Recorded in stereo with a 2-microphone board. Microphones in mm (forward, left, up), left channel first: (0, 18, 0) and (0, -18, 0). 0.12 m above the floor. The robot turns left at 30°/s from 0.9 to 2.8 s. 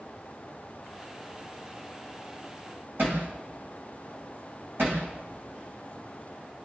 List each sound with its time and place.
3.0 s hammering: 75° right (ahead or behind), 7 m